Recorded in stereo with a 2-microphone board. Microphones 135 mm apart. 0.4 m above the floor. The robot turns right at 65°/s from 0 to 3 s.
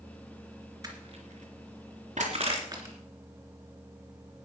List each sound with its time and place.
0.8 s crushing: 25° right (ahead or behind), 3 m; by 3.0 s 15° right (ahead or behind), 3 m